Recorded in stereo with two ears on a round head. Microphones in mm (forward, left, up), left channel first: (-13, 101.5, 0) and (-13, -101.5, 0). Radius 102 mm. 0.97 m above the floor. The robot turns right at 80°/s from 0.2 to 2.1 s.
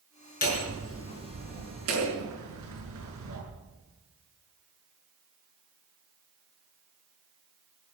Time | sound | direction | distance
0.4 | hammering | 140° left | 6 m